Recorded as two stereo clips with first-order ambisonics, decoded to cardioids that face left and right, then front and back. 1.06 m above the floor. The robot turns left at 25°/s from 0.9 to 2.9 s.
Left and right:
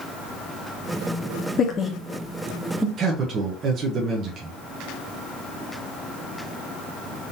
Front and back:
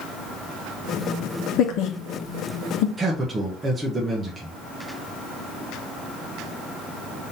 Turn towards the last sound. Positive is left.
turn(degrees=-105)